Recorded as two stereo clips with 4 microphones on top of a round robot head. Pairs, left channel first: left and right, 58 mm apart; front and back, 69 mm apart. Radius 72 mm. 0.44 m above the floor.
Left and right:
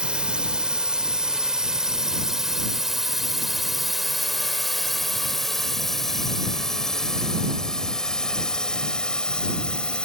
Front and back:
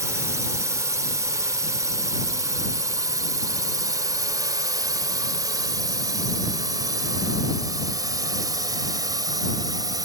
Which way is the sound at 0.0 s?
160° right.